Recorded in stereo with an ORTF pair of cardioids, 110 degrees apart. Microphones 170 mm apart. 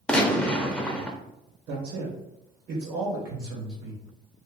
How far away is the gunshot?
About 0.6 m.